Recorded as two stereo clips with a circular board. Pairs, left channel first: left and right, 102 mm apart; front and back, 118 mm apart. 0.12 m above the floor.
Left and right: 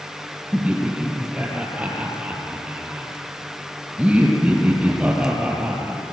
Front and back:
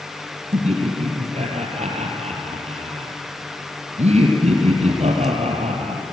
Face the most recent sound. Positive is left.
turn(degrees=-170)